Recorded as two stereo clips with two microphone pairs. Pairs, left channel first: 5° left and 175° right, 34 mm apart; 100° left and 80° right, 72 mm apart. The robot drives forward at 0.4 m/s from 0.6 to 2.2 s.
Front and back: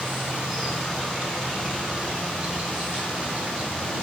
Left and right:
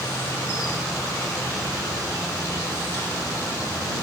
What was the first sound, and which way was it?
An insect, 100° left.